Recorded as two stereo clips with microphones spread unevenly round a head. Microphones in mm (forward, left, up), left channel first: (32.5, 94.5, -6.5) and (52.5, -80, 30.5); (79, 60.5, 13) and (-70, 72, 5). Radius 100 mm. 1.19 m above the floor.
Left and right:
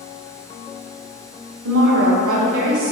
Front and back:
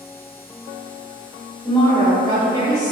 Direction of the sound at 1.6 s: 80° right.